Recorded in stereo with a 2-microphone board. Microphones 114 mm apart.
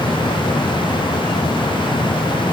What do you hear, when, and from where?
Only background noise.